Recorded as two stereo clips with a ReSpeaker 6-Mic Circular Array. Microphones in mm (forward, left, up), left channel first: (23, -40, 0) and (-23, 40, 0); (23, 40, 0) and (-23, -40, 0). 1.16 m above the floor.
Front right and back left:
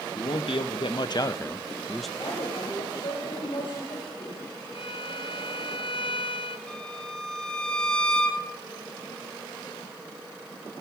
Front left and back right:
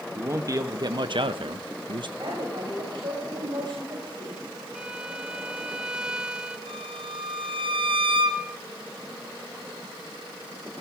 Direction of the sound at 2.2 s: 80° right.